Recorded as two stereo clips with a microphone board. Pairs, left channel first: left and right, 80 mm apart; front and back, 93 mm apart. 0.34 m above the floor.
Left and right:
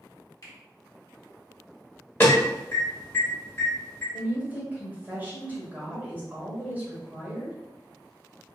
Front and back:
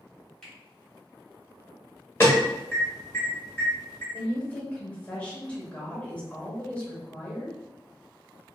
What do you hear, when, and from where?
0.4 s a finger snap: 80° left, 1.2 m
2.2 s an alarm: 45° left, 0.9 m
4.1 s a woman speaking: 55° right, 0.9 m